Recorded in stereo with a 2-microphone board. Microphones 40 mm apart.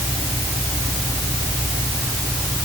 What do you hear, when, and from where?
Only background noise.